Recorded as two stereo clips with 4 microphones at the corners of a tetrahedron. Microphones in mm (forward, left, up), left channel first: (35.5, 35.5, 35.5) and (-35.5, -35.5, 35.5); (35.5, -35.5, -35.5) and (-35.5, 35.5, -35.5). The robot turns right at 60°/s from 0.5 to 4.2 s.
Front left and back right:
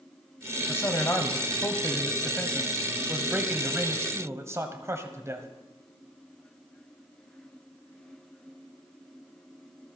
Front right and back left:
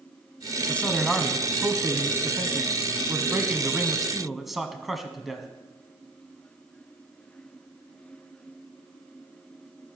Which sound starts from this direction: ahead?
A man speaking, at 0.7 s.